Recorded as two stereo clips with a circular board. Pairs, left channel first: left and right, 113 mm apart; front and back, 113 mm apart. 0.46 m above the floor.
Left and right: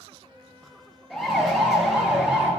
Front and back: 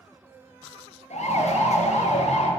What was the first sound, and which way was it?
A siren, straight ahead.